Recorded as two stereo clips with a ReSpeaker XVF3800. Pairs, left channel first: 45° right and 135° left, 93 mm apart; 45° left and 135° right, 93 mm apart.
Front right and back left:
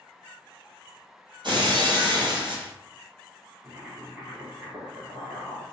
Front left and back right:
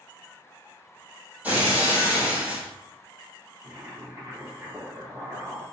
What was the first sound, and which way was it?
Breaking glass, 155° left.